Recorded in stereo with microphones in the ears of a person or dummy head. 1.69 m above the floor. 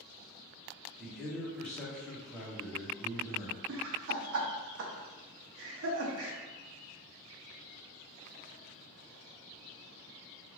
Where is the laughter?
60° right (ahead or behind), 0.6 m.